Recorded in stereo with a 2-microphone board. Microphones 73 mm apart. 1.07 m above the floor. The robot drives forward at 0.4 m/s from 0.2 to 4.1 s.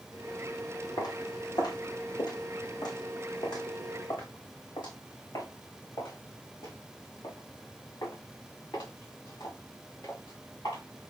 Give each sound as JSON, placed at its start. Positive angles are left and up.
{"t": 1.0, "sound": "footsteps", "side_deg": 70, "distance_m": 3.0}